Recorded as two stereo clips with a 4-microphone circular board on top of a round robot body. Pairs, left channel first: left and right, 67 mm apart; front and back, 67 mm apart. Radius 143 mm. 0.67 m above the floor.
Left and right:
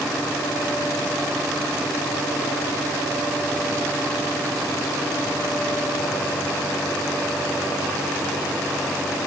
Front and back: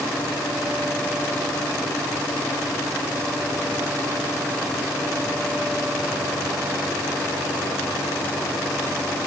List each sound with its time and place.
Only background noise.